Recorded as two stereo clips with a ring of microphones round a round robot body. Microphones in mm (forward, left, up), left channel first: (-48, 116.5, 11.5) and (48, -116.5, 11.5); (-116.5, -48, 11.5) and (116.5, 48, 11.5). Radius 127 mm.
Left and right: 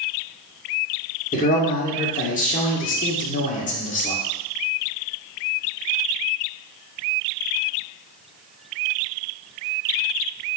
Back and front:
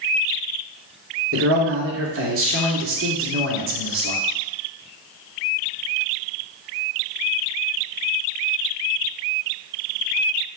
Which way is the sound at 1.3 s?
55° left.